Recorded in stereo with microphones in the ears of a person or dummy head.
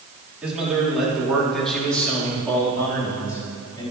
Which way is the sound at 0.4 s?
5° right (ahead or behind).